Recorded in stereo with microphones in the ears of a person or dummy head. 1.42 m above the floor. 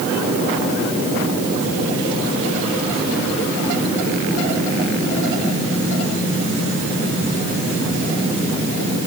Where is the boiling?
I don't hear boiling.